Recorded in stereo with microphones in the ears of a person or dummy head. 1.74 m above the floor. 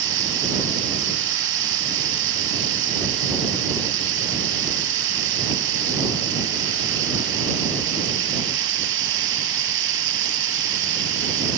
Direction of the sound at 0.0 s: 80° right.